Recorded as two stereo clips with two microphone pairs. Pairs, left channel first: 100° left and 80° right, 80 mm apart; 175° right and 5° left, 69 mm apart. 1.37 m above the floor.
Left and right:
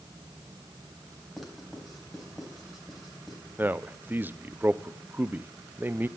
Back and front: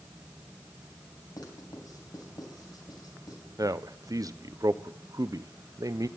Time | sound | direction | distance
1.4 | writing | 170° right | 3 m
3.6 | a man speaking | 15° right | 0.5 m